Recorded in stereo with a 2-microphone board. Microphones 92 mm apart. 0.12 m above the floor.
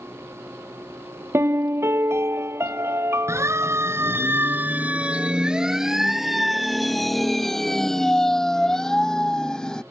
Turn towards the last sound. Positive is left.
turn(degrees=10)  # may be behind; listen again after turning